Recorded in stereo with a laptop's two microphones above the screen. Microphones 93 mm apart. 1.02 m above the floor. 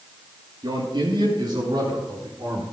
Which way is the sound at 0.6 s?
55° right (ahead or behind).